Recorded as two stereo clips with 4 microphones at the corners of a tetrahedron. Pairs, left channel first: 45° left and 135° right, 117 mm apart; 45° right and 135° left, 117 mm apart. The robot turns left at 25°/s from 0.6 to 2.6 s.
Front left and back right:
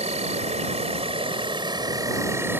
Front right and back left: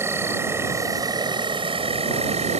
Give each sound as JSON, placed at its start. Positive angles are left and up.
{"t": 0.0, "sound": "an insect", "azimuth_deg": -155}